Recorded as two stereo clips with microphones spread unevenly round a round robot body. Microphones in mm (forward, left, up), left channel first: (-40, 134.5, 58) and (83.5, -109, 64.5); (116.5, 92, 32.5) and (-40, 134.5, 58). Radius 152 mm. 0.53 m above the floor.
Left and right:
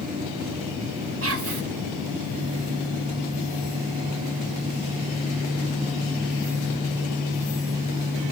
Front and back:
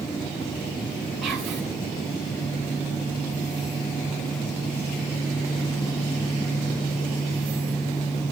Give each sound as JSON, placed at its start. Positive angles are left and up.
{"t": 1.2, "sound": "whispering", "azimuth_deg": -105, "distance_m": 2.0}